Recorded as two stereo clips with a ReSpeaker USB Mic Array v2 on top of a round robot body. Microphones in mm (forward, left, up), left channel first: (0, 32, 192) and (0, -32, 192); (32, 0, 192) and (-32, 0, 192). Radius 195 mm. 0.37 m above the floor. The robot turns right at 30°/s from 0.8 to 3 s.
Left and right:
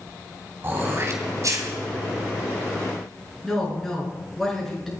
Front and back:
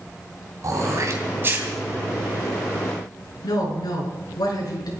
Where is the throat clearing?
145° right, 2.5 m; by 1.7 s 120° right, 2.5 m.